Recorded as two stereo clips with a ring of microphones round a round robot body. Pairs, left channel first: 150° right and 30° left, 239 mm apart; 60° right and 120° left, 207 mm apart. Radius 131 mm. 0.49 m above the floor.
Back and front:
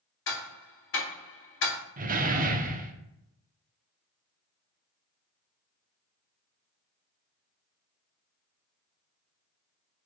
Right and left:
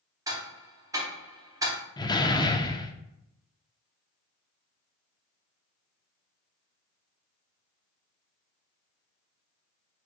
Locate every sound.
0.3 s ticking: 170° right, 1.0 m
2.0 s a door slam: straight ahead, 0.6 m